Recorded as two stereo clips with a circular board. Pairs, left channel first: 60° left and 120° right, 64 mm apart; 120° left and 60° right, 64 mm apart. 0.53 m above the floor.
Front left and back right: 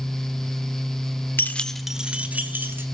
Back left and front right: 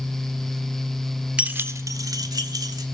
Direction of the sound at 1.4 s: 10° left.